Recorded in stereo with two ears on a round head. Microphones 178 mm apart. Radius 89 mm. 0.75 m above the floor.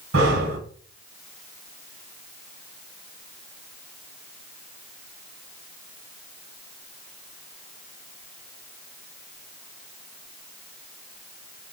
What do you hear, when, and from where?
0.1 s breathing: 75° right (ahead or behind), 1.2 m